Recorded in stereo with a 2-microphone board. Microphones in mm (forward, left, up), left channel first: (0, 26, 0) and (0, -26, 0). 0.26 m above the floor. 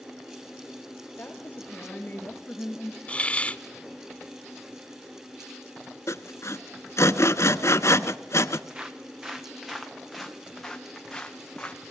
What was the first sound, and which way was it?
A woman speaking, 35° left (ahead or behind).